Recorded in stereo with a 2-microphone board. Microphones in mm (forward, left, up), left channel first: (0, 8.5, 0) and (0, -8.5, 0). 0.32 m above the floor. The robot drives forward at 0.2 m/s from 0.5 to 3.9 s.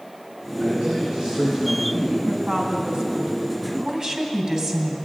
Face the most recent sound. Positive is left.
turn(degrees=-35)  # may be behind; listen again after turning